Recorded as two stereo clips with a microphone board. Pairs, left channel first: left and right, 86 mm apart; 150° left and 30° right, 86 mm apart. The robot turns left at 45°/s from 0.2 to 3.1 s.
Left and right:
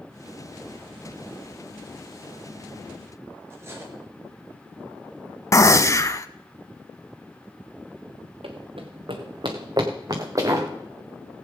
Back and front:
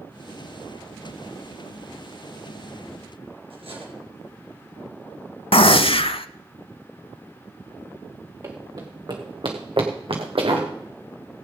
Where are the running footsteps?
85° right, 2 m; by 10.7 s 35° right, 3 m.